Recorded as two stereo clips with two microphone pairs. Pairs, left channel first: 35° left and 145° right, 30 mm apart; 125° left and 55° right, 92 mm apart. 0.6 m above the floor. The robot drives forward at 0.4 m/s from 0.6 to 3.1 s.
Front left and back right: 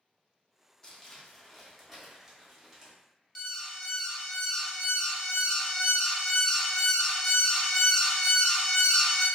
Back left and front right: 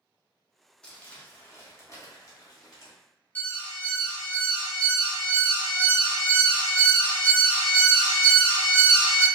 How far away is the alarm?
About 0.6 m.